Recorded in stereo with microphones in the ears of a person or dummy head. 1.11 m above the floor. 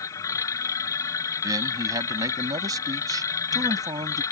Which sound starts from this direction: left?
A machine running, at 0.0 s.